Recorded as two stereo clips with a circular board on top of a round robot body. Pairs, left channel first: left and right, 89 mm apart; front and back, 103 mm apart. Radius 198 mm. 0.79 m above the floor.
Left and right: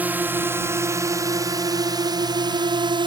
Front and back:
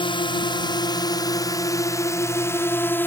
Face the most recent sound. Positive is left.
turn(degrees=-70)